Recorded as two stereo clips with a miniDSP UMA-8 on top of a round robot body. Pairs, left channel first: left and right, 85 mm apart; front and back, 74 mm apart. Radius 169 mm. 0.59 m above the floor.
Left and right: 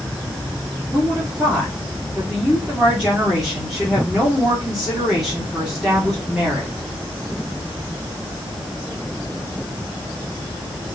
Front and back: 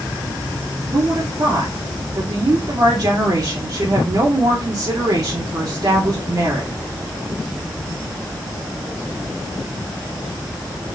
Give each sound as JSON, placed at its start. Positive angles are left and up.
{"t": 0.9, "sound": "a woman speaking", "azimuth_deg": -175, "distance_m": 2.0}